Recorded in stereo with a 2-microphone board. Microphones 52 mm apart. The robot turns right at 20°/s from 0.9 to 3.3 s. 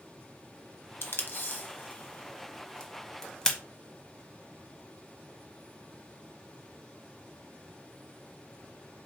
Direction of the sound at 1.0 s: 50° left (ahead or behind).